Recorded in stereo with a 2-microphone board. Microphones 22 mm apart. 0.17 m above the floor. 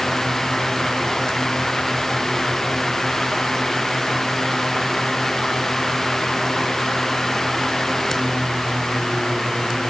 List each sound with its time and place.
Only background noise.